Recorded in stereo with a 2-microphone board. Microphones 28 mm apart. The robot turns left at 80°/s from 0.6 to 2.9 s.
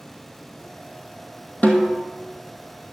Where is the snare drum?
85° left, 2.0 m; by 2.1 s 50° left, 2.0 m.